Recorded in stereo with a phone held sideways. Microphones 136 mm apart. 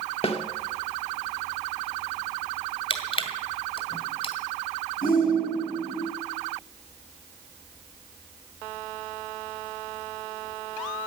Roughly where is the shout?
Left.